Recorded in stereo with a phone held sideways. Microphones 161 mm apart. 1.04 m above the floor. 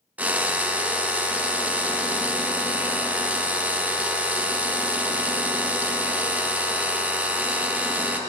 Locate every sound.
0.2 s a drill: 10° right (ahead or behind), 0.6 m